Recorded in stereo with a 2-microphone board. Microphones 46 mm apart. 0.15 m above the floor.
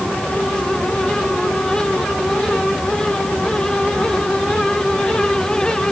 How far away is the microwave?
I don't hear a microwave.